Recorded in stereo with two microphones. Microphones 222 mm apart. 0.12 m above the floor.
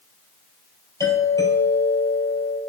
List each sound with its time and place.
1.0 s a doorbell: 15° left (ahead or behind), 4.5 m